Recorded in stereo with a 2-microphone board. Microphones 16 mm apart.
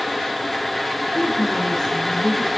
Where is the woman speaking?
25° left (ahead or behind), 1.3 m.